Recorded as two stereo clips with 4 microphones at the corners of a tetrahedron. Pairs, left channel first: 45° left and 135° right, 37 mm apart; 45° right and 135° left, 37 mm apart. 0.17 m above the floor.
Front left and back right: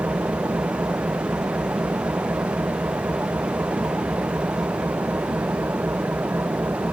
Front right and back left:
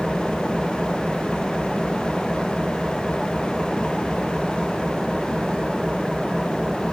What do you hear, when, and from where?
0.0 s an engine running: 130° right